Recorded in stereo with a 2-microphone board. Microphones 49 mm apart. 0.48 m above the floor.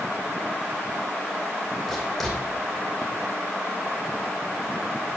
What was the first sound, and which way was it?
Writing, 5° left (ahead or behind).